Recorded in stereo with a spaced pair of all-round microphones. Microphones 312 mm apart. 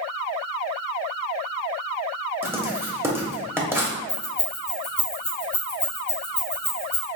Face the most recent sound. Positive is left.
turn(degrees=50)  # may be behind; listen again after turning